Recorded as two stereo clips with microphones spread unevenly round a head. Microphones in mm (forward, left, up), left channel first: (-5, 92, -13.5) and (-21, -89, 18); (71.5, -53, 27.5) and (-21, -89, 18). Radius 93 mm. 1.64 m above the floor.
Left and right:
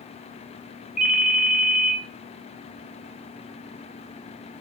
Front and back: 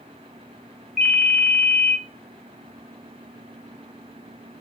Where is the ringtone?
65° right, 0.8 m.